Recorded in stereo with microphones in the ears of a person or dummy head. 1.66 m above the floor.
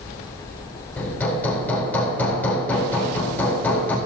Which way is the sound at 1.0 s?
10° left (ahead or behind).